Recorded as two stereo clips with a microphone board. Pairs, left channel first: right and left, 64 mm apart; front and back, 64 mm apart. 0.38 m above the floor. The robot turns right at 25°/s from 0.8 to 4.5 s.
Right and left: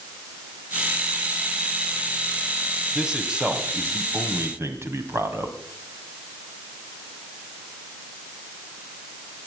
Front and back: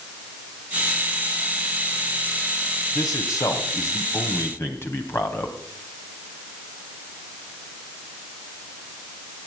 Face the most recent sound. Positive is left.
turn(degrees=45)